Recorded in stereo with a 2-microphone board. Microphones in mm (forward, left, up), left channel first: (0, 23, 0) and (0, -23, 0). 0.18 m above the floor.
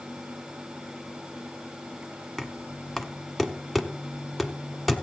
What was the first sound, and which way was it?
Knocking, centre (ahead or behind).